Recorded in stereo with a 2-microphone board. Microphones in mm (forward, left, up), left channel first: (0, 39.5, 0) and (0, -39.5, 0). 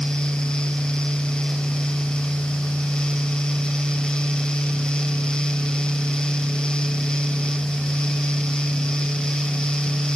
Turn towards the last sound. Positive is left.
No sound to turn to.